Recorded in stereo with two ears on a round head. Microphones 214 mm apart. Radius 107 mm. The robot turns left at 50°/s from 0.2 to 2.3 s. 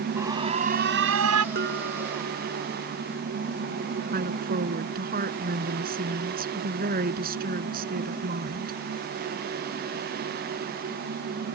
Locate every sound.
0.2 s an alarm: 10° right; by 1.4 s 75° right
1.6 s dishes clattering: 40° right; by 2.8 s 80° right
4.1 s a woman speaking: 40° right (ahead or behind)